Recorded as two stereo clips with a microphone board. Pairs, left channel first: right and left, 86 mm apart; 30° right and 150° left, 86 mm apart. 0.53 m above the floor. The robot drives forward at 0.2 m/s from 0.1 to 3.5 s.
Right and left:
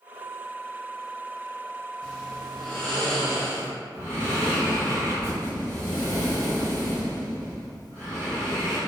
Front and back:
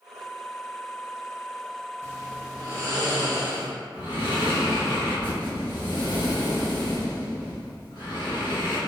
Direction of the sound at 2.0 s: 165° right.